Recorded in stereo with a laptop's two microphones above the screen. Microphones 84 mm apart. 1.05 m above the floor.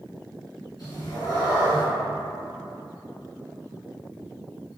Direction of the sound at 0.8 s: 60° left (ahead or behind).